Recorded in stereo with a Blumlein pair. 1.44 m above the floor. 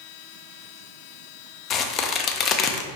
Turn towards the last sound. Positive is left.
turn(degrees=30)